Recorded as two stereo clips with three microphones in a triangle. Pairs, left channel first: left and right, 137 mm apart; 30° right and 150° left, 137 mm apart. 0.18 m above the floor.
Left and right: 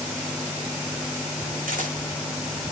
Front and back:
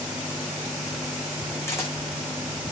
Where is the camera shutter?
100° right, 5.5 m.